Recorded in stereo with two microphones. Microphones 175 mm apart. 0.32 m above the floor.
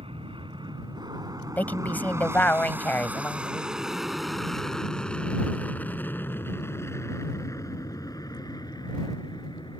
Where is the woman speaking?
10° left (ahead or behind).